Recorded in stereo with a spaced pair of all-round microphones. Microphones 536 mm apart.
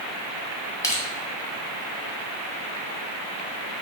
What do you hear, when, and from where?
0.8 s crushing: 5° left (ahead or behind), 1.4 m